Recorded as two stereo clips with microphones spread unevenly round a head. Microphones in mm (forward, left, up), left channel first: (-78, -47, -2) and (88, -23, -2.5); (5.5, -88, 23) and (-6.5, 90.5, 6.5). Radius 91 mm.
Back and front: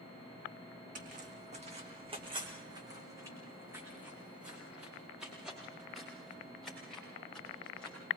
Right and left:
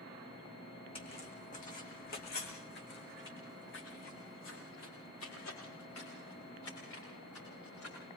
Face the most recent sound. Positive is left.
turn(degrees=-85)